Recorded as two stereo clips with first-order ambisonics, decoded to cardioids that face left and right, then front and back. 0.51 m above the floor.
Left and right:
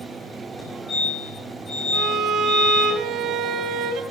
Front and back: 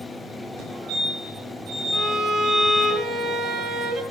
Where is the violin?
130° right, 1.4 m.